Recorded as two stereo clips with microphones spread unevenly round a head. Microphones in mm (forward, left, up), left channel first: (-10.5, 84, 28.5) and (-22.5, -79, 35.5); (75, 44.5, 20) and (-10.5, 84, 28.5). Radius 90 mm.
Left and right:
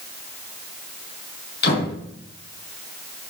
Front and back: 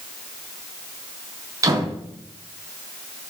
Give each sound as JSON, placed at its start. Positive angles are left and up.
{"t": 1.6, "sound": "a door slam", "azimuth_deg": 105, "distance_m": 6.5}